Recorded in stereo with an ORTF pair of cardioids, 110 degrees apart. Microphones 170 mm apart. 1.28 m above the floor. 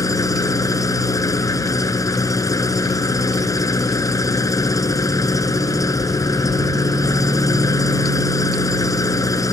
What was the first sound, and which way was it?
An engine running, 20° left.